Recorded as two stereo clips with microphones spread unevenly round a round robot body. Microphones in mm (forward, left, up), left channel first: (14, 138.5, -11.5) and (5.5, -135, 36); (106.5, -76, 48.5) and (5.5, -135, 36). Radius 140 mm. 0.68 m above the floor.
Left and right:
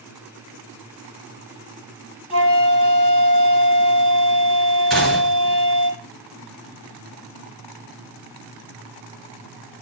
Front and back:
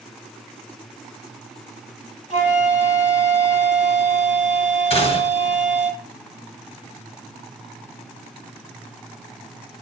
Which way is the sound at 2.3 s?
15° left.